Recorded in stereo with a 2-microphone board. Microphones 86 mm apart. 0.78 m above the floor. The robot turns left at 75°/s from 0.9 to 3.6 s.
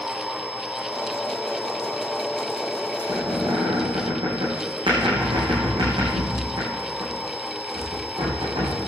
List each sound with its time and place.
3.0 s a squeak: 60° right (ahead or behind), 9 m; by 8.8 s 75° right (ahead or behind), 9 m